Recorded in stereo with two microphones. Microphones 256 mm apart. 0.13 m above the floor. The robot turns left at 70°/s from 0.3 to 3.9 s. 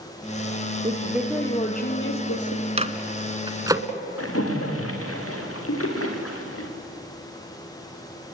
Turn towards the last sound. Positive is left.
turn(degrees=60)  # may be behind; listen again after turning